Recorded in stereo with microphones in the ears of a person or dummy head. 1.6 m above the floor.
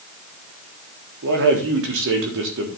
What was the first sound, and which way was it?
A man speaking, 60° right (ahead or behind).